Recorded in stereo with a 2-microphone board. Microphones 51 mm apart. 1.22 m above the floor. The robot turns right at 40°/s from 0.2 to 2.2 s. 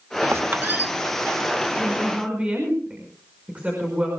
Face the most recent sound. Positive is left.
turn(degrees=-25)  # may be behind; listen again after turning